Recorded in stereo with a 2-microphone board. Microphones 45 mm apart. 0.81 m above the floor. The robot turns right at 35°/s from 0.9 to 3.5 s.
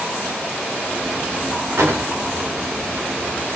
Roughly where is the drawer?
Right.